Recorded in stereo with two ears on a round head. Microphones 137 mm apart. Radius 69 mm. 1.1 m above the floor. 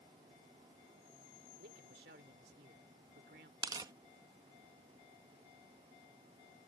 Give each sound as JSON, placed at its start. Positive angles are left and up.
{"t": 1.6, "sound": "a man speaking", "side_deg": -75}
{"t": 3.6, "sound": "tearing paper", "side_deg": -25}